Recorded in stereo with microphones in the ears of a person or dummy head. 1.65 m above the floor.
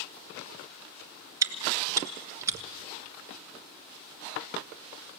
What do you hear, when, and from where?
1.4 s chewing: 20° right (ahead or behind), 1.3 m